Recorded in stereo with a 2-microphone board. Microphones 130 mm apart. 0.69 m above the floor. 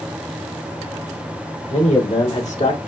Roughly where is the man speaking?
Left.